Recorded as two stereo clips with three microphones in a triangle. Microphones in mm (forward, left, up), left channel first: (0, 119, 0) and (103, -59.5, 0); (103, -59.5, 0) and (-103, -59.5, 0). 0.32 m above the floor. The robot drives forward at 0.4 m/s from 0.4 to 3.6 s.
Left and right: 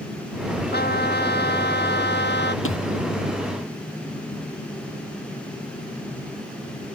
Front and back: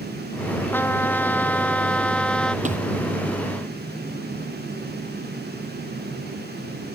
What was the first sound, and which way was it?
A trumpet, 80° left.